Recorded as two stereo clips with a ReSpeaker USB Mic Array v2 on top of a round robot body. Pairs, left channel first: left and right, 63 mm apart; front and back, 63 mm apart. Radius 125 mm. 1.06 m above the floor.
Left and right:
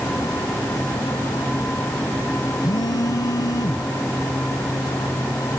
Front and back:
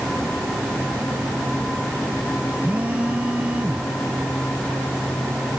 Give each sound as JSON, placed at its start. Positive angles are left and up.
{"t": 2.6, "sound": "a phone buzzing", "azimuth_deg": 110}